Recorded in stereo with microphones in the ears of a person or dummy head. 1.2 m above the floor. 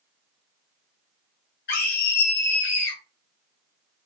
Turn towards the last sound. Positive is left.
turn(degrees=50)  # may be behind; listen again after turning